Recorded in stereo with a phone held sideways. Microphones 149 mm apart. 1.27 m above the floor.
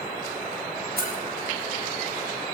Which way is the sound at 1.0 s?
85° right.